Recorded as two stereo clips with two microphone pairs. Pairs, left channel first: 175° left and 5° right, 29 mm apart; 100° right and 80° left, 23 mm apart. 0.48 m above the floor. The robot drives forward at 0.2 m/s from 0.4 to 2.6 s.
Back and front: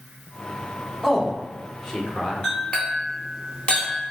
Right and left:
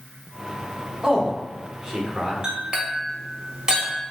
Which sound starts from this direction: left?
A man speaking, at 1.0 s.